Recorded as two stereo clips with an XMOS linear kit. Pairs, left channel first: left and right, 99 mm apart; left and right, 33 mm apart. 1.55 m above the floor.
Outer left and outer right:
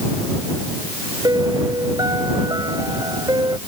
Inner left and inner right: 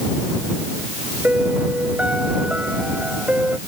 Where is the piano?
40° right (ahead or behind).